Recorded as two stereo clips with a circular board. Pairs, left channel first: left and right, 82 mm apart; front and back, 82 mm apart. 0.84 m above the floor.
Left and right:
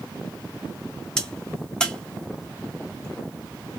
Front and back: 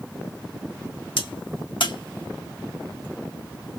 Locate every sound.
1.2 s a crack: 10° left, 0.7 m